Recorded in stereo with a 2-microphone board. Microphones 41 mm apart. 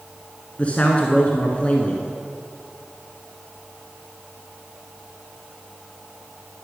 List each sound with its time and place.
0.6 s a man speaking: 35° left (ahead or behind), 1.2 m